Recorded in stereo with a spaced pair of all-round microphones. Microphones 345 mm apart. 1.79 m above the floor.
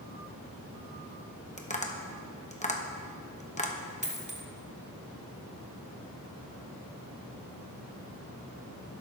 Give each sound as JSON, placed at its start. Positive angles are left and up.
{"t": 1.6, "sound": "tapping", "side_deg": 20, "distance_m": 1.1}
{"t": 4.0, "sound": "a dropped coin", "side_deg": -20, "distance_m": 1.4}